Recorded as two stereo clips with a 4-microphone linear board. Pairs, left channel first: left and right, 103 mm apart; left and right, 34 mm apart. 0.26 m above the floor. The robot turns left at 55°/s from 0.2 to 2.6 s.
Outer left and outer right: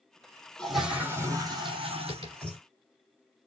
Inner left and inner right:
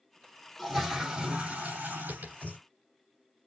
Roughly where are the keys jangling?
I don't hear keys jangling.